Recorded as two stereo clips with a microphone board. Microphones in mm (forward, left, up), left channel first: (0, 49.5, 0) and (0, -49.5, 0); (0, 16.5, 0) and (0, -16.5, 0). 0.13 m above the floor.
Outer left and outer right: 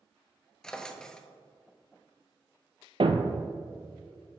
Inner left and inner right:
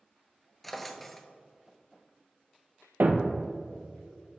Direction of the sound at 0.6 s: 5° left (ahead or behind).